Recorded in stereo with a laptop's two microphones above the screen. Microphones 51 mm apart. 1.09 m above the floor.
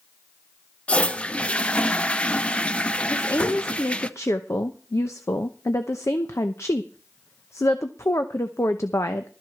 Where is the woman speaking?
65° left (ahead or behind), 0.8 m.